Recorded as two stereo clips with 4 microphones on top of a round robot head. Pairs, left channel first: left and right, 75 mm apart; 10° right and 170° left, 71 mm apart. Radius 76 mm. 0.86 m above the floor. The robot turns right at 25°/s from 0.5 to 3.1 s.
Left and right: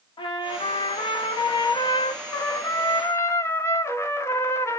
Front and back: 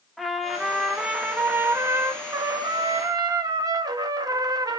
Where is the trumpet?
80° left, 0.8 m; by 4.8 s 145° left, 0.8 m.